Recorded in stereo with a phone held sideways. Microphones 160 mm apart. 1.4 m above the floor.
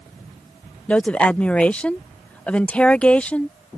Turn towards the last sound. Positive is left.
turn(degrees=10)  # may be behind; listen again after turning